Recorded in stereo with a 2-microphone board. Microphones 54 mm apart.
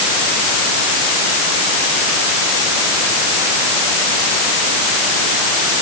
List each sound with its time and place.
Only background noise.